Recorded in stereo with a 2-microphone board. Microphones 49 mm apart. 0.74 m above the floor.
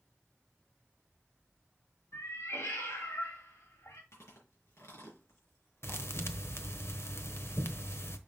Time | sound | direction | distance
2.1 | a cat meowing | 85° left | 2 m
4.1 | chewing | 70° left (ahead or behind) | 4 m
5.8 | a thud | 60° left (ahead or behind) | 1.0 m